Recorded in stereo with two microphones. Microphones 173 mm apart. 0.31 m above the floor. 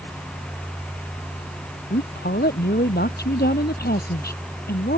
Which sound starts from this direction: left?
A woman speaking, at 1.9 s.